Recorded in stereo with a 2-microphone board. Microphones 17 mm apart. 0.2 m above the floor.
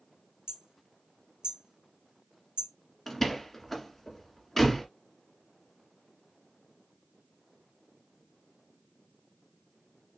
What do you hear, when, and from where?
0.5 s hammering: 65° right (ahead or behind), 1.4 m
3.1 s a door slam: 10° left (ahead or behind), 1.5 m